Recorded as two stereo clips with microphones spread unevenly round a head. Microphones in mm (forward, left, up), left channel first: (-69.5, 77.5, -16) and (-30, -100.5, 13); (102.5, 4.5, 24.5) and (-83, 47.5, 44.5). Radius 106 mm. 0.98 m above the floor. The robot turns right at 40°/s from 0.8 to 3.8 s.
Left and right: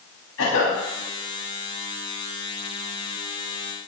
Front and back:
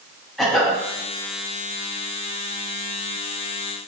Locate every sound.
0.4 s a cough: 75° left, 8 m